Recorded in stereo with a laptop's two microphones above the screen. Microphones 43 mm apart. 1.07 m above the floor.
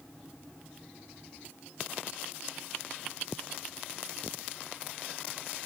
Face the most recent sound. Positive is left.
No sound to turn to.